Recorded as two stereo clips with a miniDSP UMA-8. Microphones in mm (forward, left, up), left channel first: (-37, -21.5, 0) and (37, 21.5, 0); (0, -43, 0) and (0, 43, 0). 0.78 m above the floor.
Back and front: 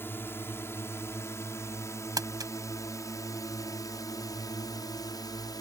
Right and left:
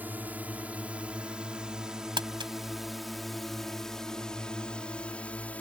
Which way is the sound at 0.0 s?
155° left.